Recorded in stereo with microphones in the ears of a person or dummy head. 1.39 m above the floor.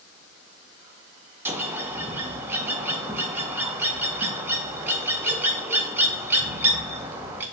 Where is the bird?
15° right (ahead or behind), 0.7 m.